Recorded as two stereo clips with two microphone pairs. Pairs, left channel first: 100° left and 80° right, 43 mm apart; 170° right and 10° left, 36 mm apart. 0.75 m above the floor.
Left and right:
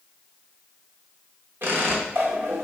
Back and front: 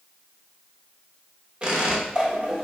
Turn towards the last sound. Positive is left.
turn(degrees=-50)